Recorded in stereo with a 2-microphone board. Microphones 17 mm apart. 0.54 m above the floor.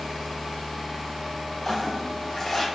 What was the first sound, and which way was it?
A toilet flushing, 10° left (ahead or behind).